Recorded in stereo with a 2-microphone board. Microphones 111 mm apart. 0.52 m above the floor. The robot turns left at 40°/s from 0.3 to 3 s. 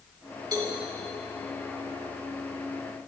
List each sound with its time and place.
0.5 s a cowbell: 35° right (ahead or behind), 1.9 m; by 0.8 s 45° right (ahead or behind), 1.9 m